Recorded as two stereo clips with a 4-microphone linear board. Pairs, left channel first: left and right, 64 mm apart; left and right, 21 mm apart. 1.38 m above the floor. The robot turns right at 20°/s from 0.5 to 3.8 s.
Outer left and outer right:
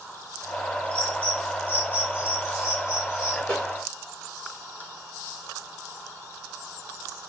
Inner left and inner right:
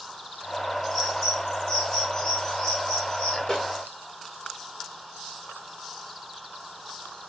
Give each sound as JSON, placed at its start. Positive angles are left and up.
{"t": 0.9, "sound": "a bird", "side_deg": 15, "distance_m": 1.7}
{"t": 3.5, "sound": "a snare drum", "side_deg": 25, "distance_m": 2.5}